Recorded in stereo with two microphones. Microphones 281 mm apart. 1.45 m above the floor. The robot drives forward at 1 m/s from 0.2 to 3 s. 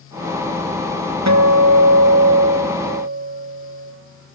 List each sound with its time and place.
1.3 s a guitar: 70° right (ahead or behind), 1.1 m; by 3.9 s 40° right (ahead or behind), 1.8 m